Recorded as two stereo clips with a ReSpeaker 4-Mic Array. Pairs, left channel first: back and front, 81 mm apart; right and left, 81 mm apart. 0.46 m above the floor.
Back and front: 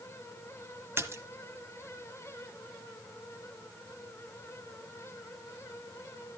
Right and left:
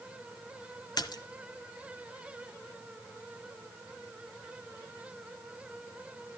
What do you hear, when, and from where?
1.0 s a splash: 60° right, 1.1 m